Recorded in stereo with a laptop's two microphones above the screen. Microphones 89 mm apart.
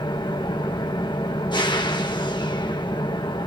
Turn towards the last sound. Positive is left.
turn(degrees=60)  # may be behind; listen again after turning